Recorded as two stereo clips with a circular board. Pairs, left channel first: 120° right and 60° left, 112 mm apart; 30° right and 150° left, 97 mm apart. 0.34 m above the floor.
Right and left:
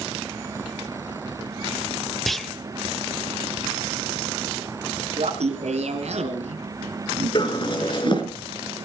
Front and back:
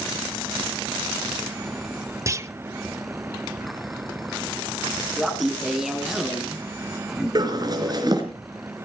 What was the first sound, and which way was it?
A clunk, 155° left.